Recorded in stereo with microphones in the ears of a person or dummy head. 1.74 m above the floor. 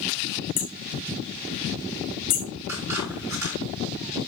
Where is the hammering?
45° left (ahead or behind), 0.9 m.